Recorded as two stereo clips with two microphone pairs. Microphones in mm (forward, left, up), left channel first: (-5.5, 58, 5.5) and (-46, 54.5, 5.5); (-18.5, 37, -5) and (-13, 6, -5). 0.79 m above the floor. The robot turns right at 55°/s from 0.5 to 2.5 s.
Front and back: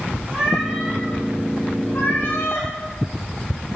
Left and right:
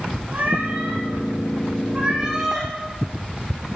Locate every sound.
0.3 s a cat meowing: 110° right, 8.5 m; by 2.7 s straight ahead, 8.5 m